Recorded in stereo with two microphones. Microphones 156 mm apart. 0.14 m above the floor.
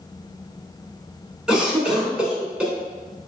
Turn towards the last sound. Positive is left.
turn(degrees=-5)  # may be behind; listen again after turning